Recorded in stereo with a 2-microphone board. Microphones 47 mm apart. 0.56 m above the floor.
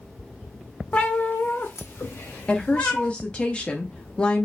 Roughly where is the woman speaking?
Left.